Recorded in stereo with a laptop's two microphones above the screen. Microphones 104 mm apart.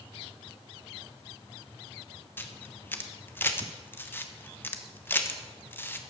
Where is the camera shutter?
20° left (ahead or behind), 1.0 m.